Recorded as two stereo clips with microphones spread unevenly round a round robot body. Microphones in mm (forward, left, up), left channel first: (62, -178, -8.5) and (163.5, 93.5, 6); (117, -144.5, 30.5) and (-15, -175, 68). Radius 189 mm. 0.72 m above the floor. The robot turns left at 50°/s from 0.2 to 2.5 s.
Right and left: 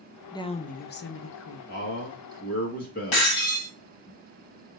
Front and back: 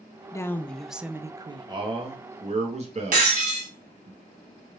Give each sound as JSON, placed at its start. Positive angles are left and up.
{"t": 0.3, "sound": "a woman speaking", "azimuth_deg": -35, "distance_m": 0.6}
{"t": 1.7, "sound": "a man speaking", "azimuth_deg": -105, "distance_m": 1.3}
{"t": 3.1, "sound": "breaking glass", "azimuth_deg": -150, "distance_m": 1.8}